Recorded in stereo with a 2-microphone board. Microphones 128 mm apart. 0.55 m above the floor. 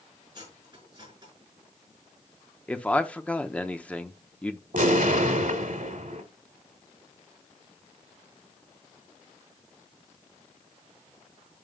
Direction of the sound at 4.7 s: 75° right (ahead or behind).